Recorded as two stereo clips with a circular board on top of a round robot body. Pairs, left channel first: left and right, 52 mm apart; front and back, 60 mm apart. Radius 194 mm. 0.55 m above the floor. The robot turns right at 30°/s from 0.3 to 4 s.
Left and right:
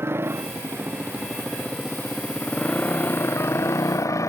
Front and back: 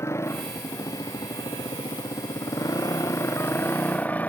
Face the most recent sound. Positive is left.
turn(degrees=65)